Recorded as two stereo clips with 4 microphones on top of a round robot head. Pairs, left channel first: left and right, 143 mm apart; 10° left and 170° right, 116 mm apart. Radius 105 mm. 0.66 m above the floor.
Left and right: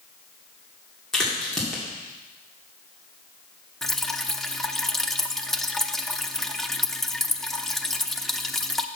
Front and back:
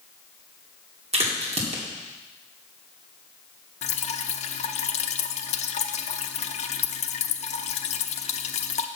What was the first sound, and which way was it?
A crack, 175° left.